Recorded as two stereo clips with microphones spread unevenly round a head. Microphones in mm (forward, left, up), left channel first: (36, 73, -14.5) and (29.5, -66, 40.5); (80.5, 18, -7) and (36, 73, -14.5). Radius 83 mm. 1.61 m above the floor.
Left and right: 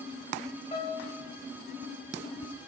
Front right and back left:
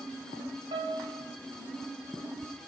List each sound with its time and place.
0.7 s a piano: 145° left, 0.8 m